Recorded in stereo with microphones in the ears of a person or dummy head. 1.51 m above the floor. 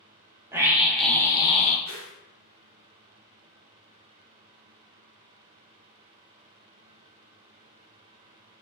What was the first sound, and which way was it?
A scream, 15° right (ahead or behind).